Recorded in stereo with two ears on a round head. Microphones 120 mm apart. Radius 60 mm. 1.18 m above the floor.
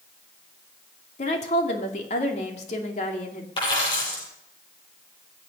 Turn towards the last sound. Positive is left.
turn(degrees=35)  # may be behind; listen again after turning